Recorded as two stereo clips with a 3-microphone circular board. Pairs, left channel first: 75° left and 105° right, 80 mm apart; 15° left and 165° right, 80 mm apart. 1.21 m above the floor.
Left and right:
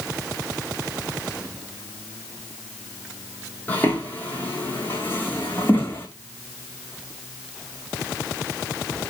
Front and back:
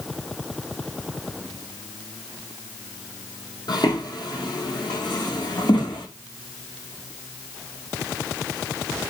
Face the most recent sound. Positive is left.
turn(degrees=10)